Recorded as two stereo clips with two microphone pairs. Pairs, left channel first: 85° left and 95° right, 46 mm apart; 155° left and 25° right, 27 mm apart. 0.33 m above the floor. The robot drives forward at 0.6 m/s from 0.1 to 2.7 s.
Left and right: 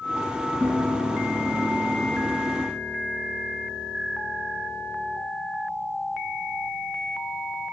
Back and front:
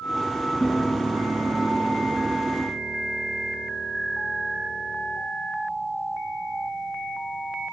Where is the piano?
135° right, 4 m; by 5.2 s 145° right, 5 m.